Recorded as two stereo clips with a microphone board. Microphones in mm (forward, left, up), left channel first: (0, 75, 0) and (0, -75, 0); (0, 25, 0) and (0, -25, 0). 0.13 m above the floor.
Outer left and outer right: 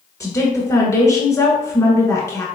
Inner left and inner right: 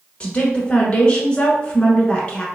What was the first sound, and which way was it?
A woman speaking, 20° left (ahead or behind).